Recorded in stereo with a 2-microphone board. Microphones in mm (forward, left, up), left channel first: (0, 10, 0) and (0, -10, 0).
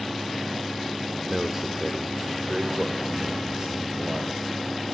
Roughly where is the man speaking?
Centre.